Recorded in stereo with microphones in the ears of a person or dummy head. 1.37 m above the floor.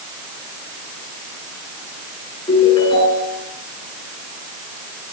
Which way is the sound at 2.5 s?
30° left (ahead or behind).